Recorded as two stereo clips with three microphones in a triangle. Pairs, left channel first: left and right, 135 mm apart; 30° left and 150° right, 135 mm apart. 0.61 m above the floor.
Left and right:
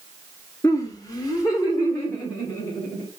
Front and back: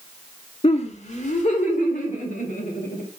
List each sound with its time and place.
0.6 s laughter: 35° left, 0.8 m; by 3.0 s 30° left, 2.5 m